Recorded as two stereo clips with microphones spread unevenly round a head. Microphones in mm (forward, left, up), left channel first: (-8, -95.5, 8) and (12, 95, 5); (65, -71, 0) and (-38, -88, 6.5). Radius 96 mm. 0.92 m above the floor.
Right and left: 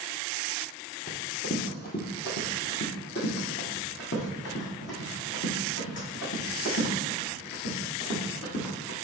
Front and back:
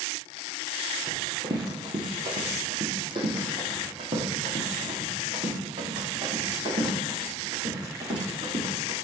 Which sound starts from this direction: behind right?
Running footsteps, at 1.1 s.